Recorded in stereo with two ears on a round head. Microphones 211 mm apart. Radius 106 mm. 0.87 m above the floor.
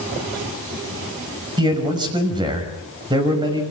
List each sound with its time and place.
1.6 s a man speaking: 20° right (ahead or behind), 5.5 m